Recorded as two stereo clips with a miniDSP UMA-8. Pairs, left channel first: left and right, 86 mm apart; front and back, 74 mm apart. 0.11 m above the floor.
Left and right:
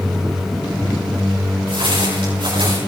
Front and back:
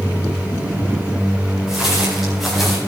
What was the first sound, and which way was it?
Footsteps, 95° right.